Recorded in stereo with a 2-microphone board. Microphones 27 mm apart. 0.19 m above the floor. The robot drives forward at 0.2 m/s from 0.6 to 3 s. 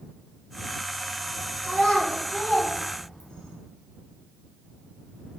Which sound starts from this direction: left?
A child speaking, at 1.6 s.